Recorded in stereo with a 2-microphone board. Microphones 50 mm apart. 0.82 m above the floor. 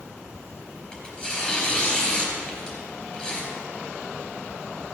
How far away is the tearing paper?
About 3.5 m.